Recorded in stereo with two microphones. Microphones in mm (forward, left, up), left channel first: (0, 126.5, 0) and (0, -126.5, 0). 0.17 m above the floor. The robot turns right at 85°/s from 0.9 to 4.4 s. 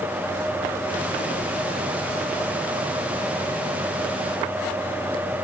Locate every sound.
Only background noise.